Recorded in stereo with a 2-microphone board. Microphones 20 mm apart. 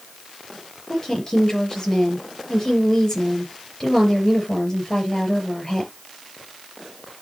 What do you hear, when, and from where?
0.9 s a woman speaking: 25° left (ahead or behind), 5 m